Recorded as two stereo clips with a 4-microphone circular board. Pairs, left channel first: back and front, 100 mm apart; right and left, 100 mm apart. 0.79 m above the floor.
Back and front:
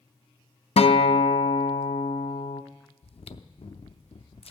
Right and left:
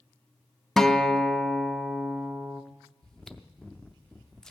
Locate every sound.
0.8 s a guitar: 175° right, 0.6 m
3.0 s chewing: 175° right, 0.5 m